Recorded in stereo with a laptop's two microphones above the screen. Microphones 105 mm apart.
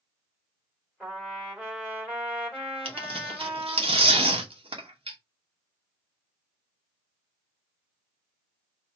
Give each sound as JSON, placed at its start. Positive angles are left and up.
{"t": 1.0, "sound": "a trumpet", "side_deg": -10, "distance_m": 1.7}
{"t": 2.9, "sound": "tearing paper", "side_deg": -75, "distance_m": 0.9}